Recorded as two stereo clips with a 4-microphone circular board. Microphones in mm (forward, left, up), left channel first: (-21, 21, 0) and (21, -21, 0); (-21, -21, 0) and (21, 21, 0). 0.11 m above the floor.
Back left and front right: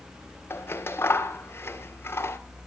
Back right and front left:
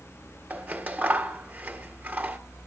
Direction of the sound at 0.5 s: 100° left.